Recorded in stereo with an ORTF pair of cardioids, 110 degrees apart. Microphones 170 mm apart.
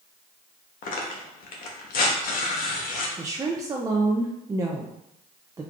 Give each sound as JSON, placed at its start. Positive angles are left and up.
{"t": 0.8, "sound": "tearing paper", "azimuth_deg": 60, "distance_m": 1.0}
{"t": 3.2, "sound": "a woman speaking", "azimuth_deg": -20, "distance_m": 0.5}